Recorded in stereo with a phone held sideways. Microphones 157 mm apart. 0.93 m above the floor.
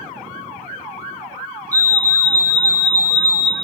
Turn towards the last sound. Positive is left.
turn(degrees=-20)  # may be behind; listen again after turning